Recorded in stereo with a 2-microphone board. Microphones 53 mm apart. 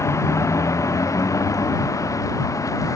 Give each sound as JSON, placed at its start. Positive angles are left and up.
{"t": 0.0, "sound": "a vehicle", "side_deg": 65}